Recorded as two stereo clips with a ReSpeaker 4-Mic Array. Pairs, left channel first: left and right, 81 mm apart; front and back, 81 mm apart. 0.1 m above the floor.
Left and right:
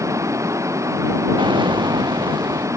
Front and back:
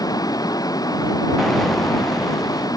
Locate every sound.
0.0 s running water: 40° right
1.4 s an explosion: 85° right